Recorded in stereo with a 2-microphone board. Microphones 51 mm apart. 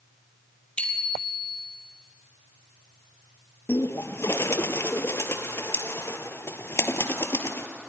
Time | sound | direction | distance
0.8 | a bicycle bell | 20° left (ahead or behind) | 3 m
3.7 | a bird | 55° left (ahead or behind) | 1.4 m